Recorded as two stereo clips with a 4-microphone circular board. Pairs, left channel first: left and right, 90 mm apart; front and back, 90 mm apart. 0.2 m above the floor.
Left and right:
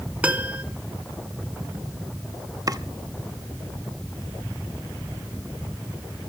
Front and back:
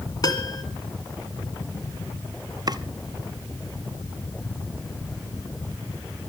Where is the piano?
20° right, 1.8 m.